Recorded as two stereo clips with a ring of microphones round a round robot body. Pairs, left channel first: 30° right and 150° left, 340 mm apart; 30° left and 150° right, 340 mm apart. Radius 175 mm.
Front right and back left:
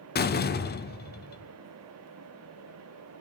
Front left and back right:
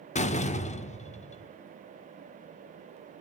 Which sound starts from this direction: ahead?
A door slam, at 0.1 s.